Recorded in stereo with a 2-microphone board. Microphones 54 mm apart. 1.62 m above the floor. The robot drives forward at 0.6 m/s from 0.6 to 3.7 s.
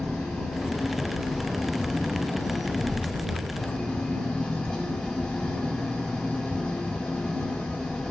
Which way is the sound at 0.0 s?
10° left (ahead or behind).